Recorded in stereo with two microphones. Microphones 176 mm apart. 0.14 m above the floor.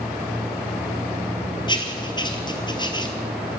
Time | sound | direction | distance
1.7 | writing | 25° left (ahead or behind) | 2.0 m